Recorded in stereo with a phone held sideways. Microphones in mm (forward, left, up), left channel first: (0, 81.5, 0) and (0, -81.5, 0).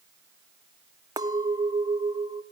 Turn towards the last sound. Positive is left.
turn(degrees=-20)  # may be behind; listen again after turning